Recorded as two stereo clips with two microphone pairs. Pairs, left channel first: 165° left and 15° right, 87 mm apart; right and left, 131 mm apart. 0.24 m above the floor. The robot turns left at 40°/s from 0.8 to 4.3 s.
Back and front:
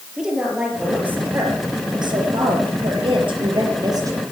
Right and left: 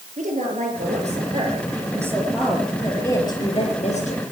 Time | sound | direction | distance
0.2 | a woman speaking | 70° left | 5 m